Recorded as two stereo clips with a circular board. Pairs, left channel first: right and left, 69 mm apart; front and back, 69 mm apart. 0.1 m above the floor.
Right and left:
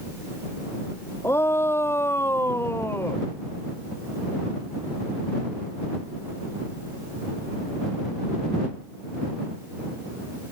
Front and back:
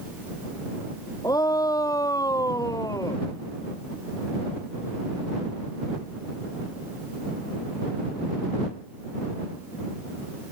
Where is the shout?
35° right.